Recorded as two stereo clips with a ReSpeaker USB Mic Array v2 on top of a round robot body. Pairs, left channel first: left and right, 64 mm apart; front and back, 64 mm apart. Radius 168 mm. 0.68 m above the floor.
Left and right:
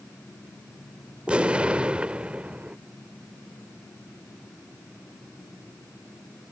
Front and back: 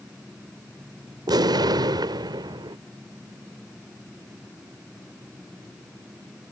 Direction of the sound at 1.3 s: 165° right.